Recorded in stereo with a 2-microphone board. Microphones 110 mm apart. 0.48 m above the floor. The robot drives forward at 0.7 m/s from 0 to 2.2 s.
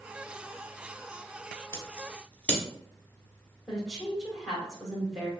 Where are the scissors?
25° left (ahead or behind), 0.7 m; by 2.6 s 15° left (ahead or behind), 1.0 m.